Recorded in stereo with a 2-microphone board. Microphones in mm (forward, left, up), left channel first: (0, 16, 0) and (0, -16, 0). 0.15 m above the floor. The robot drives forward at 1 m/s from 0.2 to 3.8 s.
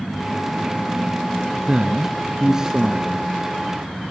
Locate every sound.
1.7 s a man speaking: 25° right (ahead or behind), 1.3 m; by 3.3 s 15° right (ahead or behind), 2 m